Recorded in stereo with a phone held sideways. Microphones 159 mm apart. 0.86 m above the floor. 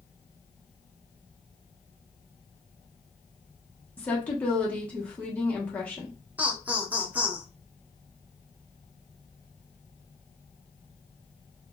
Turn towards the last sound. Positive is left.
turn(degrees=-10)  # may be behind; listen again after turning